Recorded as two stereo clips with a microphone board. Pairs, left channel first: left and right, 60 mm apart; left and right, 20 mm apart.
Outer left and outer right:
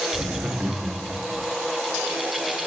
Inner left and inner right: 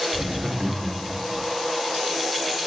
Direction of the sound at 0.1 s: 35° right (ahead or behind).